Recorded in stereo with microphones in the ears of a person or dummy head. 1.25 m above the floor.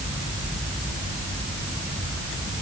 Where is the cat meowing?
No cat meowing in this recording.